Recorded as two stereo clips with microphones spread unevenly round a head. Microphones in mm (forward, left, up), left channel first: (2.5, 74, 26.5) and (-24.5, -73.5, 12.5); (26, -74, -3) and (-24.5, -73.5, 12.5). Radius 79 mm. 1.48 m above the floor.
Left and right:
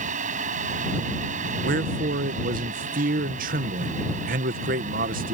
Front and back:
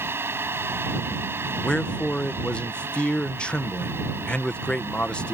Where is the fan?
140° right.